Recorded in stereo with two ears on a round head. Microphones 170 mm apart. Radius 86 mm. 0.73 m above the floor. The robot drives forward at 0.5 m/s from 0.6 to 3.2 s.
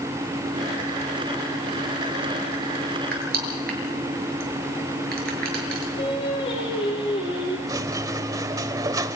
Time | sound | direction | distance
3.1 | crushing | 50° right (ahead or behind) | 7.5 m
6.0 | singing | 30° left (ahead or behind) | 10 m
7.7 | a squeak | 20° right (ahead or behind) | 1.1 m